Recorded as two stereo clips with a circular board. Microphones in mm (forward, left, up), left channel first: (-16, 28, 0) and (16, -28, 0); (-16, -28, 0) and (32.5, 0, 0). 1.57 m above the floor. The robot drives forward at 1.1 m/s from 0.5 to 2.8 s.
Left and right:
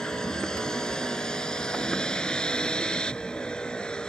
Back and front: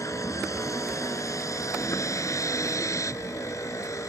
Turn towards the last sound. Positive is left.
turn(degrees=-165)